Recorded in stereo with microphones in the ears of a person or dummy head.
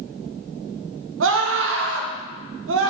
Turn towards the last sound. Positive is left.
turn(degrees=-60)  # may be behind; listen again after turning